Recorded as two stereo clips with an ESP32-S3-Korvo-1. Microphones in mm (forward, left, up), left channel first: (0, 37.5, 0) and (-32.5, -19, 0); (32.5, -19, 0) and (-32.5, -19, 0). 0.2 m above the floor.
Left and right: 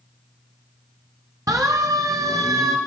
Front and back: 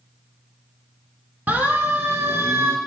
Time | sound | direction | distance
1.5 | a siren | 125° right | 3 m